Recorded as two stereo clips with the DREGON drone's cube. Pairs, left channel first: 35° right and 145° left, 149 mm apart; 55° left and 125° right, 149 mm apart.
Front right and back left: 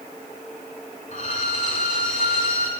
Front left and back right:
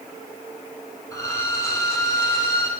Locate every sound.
1.1 s a violin: 10° right, 1.5 m